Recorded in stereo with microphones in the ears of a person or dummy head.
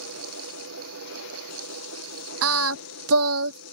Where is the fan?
85° right.